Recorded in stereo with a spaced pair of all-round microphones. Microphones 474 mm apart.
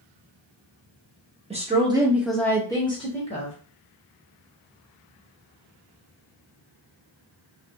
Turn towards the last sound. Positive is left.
turn(degrees=15)  # may be behind; listen again after turning